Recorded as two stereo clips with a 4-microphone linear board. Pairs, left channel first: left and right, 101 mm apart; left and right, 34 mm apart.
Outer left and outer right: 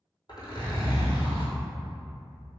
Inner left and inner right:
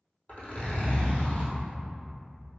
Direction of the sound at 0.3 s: 45° left (ahead or behind).